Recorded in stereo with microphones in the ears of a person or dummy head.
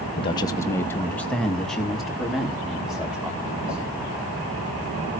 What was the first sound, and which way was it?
A man speaking, 30° left (ahead or behind).